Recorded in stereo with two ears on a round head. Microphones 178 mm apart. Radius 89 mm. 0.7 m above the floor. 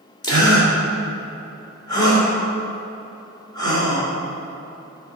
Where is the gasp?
20° left (ahead or behind), 2.5 m.